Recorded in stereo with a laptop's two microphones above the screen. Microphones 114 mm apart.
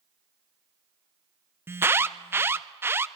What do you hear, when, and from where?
1.7 s an alarm: 20° right (ahead or behind), 0.6 m